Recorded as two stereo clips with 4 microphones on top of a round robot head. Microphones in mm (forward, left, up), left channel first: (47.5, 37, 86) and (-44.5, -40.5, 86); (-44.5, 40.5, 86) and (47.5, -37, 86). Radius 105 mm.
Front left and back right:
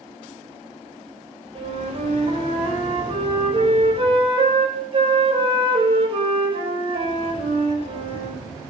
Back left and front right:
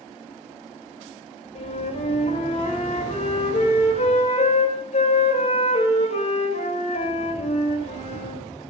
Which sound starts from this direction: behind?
A flute, at 1.6 s.